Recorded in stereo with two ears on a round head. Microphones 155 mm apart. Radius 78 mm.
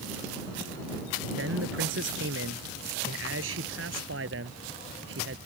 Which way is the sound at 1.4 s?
85° right.